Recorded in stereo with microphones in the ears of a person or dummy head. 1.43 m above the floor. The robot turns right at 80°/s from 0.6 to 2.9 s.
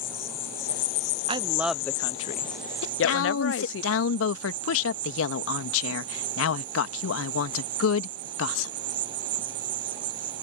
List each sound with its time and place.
0.0 s an insect: 20° left; by 10.4 s 155° right
1.3 s a woman speaking: 35° right; by 3.8 s 90° left
2.8 s a woman speaking: 75° left (ahead or behind); by 8.7 s 80° left